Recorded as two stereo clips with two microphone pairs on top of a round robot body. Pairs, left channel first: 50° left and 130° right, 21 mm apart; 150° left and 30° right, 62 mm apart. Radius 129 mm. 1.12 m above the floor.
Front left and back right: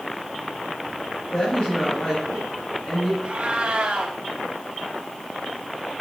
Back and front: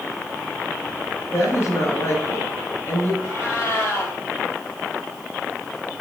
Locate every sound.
1.3 s a woman speaking: 100° left, 5.5 m
3.2 s a cat meowing: 160° right, 1.9 m